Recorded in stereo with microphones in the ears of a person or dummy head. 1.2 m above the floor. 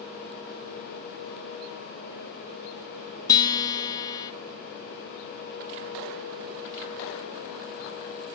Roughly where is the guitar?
Left.